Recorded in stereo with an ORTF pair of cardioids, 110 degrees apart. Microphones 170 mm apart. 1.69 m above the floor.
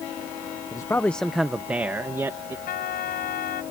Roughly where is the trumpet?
Ahead left.